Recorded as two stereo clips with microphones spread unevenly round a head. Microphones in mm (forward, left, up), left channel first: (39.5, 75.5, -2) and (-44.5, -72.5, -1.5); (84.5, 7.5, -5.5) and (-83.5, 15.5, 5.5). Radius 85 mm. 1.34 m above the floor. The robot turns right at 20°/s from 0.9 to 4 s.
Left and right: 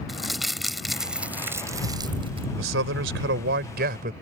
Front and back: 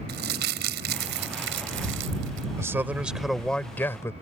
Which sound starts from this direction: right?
A man speaking, at 2.6 s.